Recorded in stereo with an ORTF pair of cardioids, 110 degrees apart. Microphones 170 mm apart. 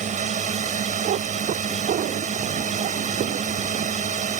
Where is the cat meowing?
55° right.